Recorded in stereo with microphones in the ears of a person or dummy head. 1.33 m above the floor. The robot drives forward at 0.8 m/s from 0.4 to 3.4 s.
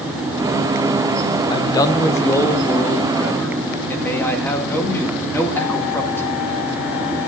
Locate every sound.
1.5 s a man speaking: 20° left (ahead or behind), 0.7 m; by 6.3 s 5° left (ahead or behind), 2 m